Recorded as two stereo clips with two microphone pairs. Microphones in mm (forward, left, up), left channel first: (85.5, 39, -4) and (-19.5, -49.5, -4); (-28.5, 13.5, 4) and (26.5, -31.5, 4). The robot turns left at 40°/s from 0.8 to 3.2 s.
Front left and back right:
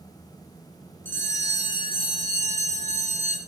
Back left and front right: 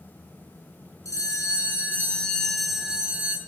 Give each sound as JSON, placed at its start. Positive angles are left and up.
{"t": 1.1, "sound": "a bell", "azimuth_deg": 115, "distance_m": 2.0}